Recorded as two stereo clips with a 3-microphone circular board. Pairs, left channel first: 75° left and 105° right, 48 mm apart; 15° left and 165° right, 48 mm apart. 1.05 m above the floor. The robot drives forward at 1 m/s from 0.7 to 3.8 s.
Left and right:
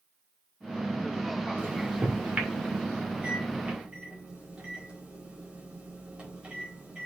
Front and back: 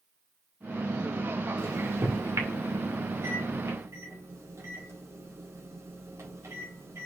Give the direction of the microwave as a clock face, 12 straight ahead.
5 o'clock.